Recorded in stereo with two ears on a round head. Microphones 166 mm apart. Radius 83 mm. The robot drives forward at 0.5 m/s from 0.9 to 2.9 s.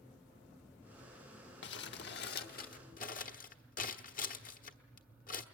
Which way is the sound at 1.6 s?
70° left (ahead or behind).